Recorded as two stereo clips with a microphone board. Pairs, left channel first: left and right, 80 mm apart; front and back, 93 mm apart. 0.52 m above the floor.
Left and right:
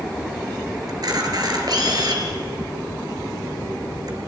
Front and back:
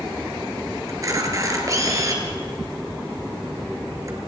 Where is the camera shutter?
125° right, 3 m.